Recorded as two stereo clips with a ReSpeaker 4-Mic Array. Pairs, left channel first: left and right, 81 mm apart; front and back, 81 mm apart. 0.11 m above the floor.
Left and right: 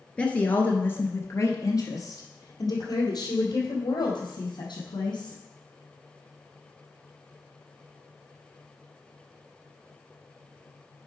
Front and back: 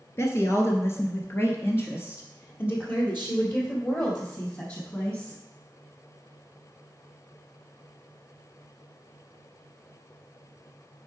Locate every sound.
0.2 s a woman speaking: 20° left, 1.3 m; by 5.4 s 65° left, 3.5 m